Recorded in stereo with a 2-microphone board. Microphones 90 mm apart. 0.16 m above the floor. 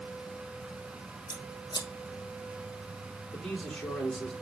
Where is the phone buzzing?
I don't hear a phone buzzing.